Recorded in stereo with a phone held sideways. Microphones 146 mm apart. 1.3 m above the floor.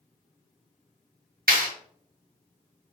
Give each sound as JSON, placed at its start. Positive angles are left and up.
{"t": 1.5, "sound": "a clap", "side_deg": -80, "distance_m": 1.2}